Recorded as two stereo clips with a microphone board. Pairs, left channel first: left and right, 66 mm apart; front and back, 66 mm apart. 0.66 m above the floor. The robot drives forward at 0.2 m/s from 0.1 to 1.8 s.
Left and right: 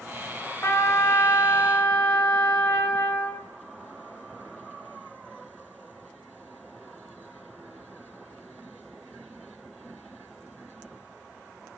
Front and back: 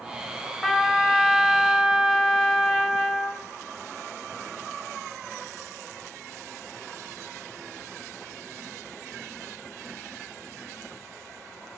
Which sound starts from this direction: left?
A trumpet, at 0.6 s.